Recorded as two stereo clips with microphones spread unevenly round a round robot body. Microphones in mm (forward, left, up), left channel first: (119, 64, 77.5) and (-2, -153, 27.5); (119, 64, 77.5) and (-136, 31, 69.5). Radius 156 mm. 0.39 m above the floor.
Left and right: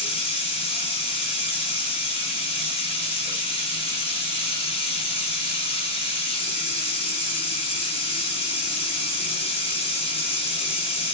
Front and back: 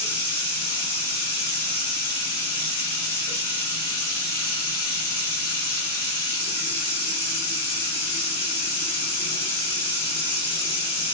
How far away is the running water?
About 2 m.